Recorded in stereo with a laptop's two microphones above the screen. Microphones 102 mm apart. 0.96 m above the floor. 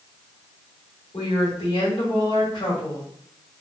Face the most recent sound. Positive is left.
turn(degrees=65)  # may be behind; listen again after turning